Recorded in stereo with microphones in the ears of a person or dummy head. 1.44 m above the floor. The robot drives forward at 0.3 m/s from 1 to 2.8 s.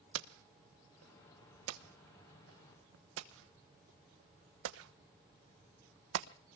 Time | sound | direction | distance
0.1 | hammering | 75° right (ahead or behind) | 1.1 m